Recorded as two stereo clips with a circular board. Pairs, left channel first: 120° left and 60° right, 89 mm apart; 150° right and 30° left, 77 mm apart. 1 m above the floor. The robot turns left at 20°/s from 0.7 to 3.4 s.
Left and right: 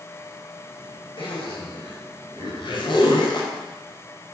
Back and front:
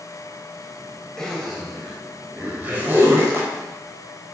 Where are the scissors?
No scissors in this recording.